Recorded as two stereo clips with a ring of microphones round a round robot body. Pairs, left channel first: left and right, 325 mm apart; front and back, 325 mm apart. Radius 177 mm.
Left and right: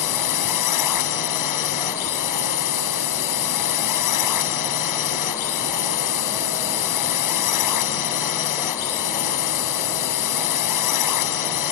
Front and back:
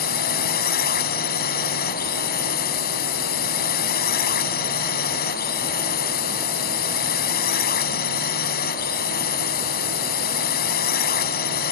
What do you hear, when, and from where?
0.0 s a drone: 60° left